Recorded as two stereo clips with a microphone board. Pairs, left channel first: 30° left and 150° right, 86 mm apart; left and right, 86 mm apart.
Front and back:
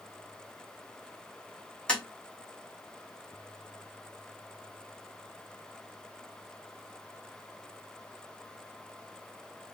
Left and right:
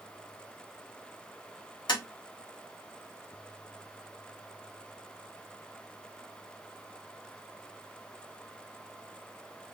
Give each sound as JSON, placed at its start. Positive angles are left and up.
{"t": 1.9, "sound": "tapping", "azimuth_deg": 110, "distance_m": 1.8}